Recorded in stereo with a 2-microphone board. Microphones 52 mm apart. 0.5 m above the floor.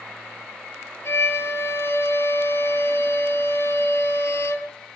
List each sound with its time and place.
1.1 s a violin: 60° left (ahead or behind), 2.5 m